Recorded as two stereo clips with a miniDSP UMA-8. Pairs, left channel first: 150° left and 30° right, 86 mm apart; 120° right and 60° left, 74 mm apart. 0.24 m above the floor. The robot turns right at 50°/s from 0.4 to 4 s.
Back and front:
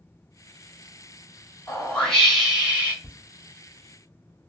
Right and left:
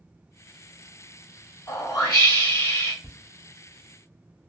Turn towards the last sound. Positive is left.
turn(degrees=-155)